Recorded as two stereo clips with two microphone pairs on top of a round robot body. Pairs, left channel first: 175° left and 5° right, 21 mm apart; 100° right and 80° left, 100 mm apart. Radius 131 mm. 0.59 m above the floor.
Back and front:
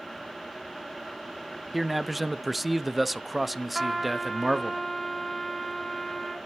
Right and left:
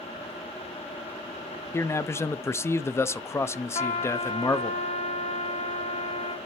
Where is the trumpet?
100° right, 1.3 m.